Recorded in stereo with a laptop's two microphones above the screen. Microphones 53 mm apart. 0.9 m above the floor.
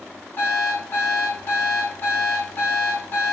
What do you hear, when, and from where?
0.4 s an alarm clock: 45° left (ahead or behind), 3.5 m